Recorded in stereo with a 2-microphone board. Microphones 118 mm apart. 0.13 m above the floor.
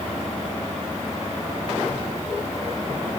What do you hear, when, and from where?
Only background noise.